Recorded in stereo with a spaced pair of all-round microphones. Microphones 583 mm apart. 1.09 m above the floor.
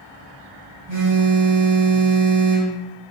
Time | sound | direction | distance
0.9 | a phone buzzing | 75° right (ahead or behind) | 3 m